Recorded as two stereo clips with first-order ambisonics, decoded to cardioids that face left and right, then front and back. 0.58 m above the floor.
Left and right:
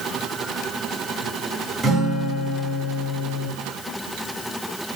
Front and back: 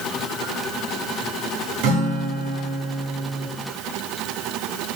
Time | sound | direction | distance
1.8 | a guitar | 170° right | 1.7 m